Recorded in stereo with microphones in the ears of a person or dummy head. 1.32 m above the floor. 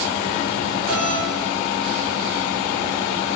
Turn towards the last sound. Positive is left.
turn(degrees=30)  # may be behind; listen again after turning